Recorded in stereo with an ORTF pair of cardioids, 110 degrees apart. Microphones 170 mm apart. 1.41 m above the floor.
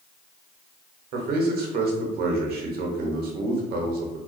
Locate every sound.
1.1 s a man speaking: 65° right, 0.7 m